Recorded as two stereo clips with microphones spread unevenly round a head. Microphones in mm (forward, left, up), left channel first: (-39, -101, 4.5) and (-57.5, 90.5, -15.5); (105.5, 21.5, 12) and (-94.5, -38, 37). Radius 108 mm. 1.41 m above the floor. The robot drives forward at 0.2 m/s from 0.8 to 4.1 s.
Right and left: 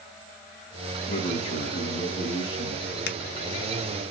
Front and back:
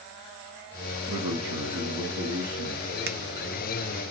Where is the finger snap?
115° right, 0.7 m; by 3.2 s 120° right, 0.7 m.